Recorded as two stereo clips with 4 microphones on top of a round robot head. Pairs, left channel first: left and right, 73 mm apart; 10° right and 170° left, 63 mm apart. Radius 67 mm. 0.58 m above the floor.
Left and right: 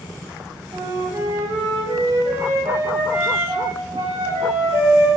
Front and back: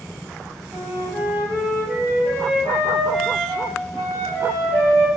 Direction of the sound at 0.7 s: 85° right.